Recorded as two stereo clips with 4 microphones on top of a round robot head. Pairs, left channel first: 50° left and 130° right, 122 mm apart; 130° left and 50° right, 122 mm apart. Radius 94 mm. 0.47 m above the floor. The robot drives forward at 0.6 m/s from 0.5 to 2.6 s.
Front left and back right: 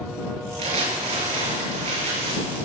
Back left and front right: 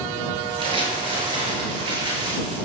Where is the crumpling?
95° right, 6.5 m; by 2.6 s 105° right, 7 m.